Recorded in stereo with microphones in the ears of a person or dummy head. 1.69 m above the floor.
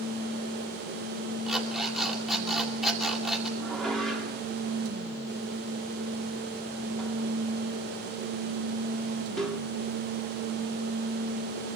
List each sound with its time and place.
1.5 s an alarm clock: 5° right (ahead or behind), 2.5 m
3.6 s dishes clattering: centre (ahead or behind), 2.5 m